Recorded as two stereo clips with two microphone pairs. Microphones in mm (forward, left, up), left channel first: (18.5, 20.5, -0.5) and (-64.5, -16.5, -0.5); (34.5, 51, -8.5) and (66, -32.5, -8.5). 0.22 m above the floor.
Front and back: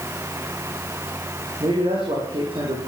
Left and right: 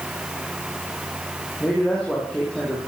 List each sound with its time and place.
1.6 s a man speaking: 170° right, 8.5 m